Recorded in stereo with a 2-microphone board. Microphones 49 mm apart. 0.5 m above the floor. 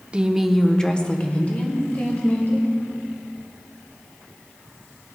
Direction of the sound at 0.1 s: 20° right (ahead or behind).